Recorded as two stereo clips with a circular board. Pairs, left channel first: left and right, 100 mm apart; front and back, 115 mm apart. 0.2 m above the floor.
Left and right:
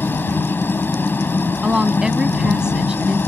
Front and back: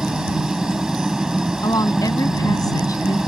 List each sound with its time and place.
0.0 s a helicopter: 105° left
1.6 s a woman speaking: 15° right